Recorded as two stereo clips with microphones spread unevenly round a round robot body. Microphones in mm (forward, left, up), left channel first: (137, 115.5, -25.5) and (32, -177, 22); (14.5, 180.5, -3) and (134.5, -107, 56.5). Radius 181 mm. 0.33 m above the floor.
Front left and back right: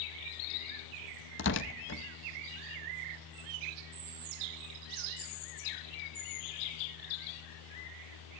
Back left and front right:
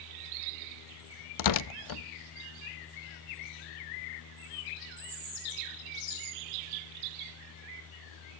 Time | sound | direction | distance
1.4 | tearing paper | 125° left | 0.6 m